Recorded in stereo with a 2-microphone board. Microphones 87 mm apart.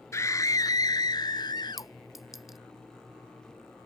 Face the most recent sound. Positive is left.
turn(degrees=-5)  # may be behind; listen again after turning